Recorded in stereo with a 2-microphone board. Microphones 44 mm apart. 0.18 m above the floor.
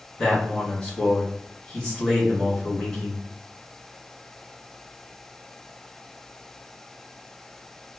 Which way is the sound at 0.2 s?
25° left (ahead or behind).